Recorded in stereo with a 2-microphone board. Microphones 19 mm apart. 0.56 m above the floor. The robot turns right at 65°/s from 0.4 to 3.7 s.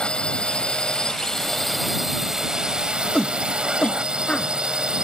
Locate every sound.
0.0 s a drone: 80° left; by 5.0 s 65° right
3.1 s a shout: 35° left (ahead or behind); by 4.5 s 70° left (ahead or behind)